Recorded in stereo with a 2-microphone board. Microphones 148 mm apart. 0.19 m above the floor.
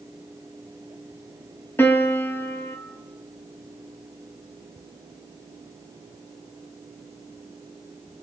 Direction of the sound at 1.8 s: 15° left (ahead or behind).